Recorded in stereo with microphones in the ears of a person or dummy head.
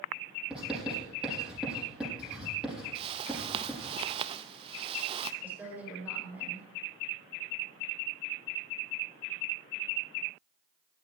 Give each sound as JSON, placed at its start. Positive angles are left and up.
{"t": 0.5, "sound": "writing", "side_deg": -5, "distance_m": 7.5}
{"t": 3.0, "sound": "a whoosh", "side_deg": -30, "distance_m": 0.5}
{"t": 5.4, "sound": "a woman speaking", "side_deg": -10, "distance_m": 4.0}